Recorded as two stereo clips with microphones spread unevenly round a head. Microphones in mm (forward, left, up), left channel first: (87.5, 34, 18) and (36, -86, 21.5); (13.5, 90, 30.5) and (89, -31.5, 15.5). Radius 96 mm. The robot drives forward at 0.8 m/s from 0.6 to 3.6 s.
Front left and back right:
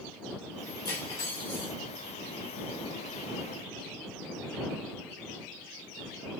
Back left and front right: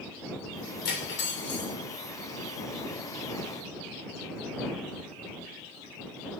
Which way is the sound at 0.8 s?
140° left.